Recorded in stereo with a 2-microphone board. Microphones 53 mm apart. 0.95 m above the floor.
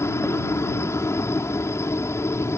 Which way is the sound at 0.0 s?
55° left (ahead or behind).